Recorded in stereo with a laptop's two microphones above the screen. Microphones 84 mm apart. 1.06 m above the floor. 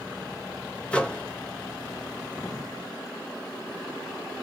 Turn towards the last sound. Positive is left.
turn(degrees=10)  # may be behind; listen again after turning